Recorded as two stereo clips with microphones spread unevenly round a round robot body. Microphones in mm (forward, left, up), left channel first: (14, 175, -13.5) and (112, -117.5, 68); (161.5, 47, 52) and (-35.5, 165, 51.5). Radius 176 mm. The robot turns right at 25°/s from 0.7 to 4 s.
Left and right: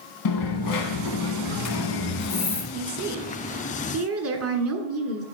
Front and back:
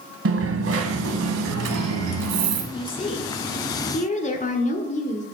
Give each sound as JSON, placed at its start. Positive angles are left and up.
{"t": 0.2, "sound": "a dropped coin", "azimuth_deg": 125, "distance_m": 1.3}
{"t": 2.7, "sound": "a woman speaking", "azimuth_deg": -75, "distance_m": 1.5}